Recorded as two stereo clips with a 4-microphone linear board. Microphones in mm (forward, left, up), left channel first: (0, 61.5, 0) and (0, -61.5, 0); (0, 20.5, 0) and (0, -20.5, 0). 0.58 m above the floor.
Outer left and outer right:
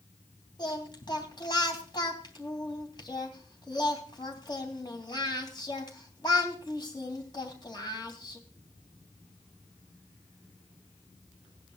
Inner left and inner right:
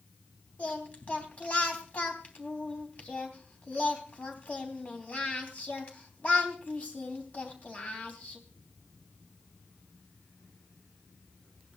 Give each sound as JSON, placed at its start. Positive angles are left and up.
{"t": 0.6, "sound": "singing", "side_deg": 35, "distance_m": 3.0}